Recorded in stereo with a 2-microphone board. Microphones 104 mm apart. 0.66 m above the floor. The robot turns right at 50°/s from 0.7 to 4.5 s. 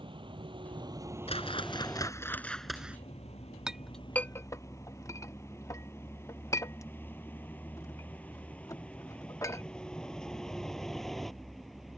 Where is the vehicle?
55° right (ahead or behind); by 12.0 s centre (ahead or behind).